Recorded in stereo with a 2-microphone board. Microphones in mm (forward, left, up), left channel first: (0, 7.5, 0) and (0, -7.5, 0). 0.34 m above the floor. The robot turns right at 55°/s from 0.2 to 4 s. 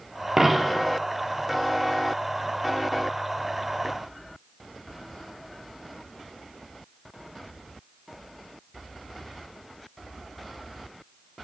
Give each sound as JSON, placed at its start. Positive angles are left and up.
{"t": 0.4, "sound": "a dropped coin", "side_deg": -30, "distance_m": 1.3}